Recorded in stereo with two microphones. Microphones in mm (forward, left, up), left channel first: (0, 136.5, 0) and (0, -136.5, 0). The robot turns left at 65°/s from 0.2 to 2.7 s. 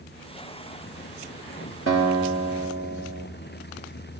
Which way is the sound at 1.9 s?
55° right.